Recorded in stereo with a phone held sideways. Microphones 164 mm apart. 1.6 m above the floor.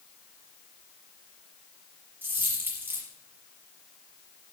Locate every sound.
2.2 s a dropped coin: 10° right (ahead or behind), 5 m